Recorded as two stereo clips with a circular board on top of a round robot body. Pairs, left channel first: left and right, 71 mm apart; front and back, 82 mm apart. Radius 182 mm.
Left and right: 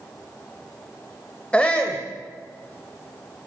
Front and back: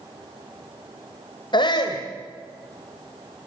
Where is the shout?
20° left, 2.5 m.